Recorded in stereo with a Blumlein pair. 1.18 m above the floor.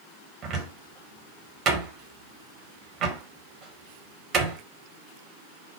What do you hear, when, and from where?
0.4 s a cupboard door: 30° right, 1.0 m